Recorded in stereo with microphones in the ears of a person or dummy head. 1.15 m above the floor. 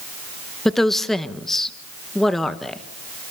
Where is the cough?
No cough in this recording.